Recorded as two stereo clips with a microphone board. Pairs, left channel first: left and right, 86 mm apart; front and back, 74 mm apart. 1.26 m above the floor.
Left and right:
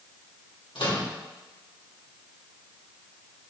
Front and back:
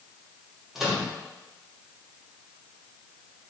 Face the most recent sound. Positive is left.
turn(degrees=95)